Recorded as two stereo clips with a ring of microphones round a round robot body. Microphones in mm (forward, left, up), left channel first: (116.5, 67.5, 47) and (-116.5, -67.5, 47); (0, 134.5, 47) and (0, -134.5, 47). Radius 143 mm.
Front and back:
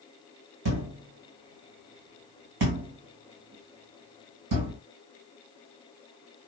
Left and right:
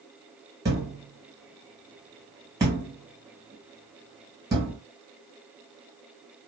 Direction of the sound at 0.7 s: 170° right.